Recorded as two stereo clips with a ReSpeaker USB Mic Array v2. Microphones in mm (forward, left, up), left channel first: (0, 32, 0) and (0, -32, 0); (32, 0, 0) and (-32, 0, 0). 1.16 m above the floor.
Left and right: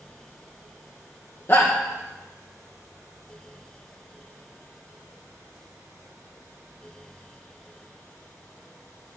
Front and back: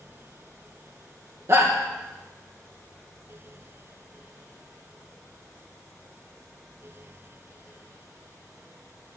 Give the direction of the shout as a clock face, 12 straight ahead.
7 o'clock.